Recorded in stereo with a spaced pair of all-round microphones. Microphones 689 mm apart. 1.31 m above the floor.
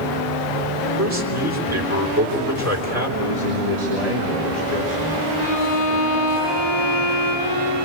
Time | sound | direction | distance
1.0 | a man speaking | 20° right (ahead or behind) | 3.5 m
3.2 | a man speaking | 65° right (ahead or behind) | 3.5 m
5.4 | a violin | 70° right (ahead or behind) | 9.5 m